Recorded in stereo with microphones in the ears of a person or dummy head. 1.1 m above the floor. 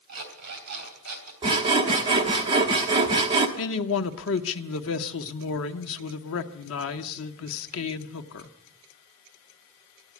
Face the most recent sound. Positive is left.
turn(degrees=75)  # may be behind; listen again after turning